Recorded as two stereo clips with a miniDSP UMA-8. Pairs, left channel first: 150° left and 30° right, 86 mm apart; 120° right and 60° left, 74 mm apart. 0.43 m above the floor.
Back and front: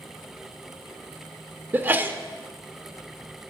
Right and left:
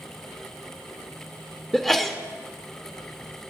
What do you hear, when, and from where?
1.7 s a sneeze: 35° right, 0.8 m